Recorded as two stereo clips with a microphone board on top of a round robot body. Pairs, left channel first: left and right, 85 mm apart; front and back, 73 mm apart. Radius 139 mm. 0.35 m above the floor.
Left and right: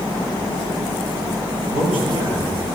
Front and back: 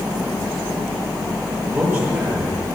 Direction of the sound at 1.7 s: 105° right.